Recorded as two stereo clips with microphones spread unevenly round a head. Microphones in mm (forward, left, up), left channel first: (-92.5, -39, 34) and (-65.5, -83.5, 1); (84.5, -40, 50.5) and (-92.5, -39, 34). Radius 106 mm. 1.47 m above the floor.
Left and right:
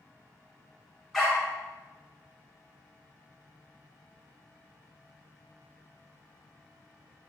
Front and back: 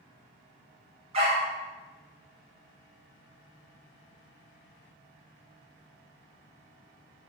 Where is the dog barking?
130° left, 1.2 m.